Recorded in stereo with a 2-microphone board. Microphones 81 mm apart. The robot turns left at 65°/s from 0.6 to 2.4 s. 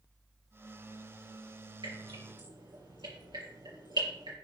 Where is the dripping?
70° right (ahead or behind), 4 m.